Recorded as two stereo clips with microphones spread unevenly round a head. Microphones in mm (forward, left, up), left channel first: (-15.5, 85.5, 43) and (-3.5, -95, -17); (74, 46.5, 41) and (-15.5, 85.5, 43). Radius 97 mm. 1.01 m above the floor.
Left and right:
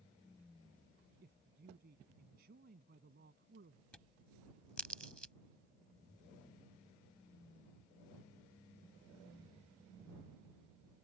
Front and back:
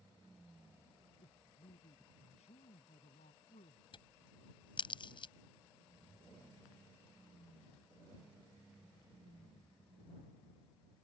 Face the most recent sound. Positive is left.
turn(degrees=10)